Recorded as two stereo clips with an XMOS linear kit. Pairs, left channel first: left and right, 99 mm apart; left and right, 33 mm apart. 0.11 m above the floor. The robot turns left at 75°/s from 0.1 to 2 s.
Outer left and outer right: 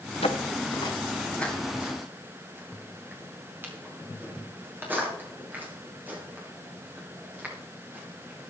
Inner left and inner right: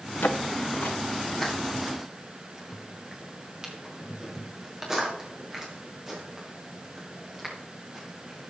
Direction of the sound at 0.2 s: 90° left.